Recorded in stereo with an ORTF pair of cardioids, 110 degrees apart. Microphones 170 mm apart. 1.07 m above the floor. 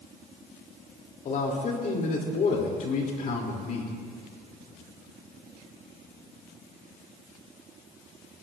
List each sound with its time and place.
1.2 s a man speaking: 50° left, 3 m